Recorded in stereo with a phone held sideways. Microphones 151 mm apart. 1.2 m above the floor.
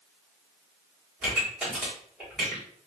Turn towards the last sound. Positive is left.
turn(degrees=-5)  # may be behind; listen again after turning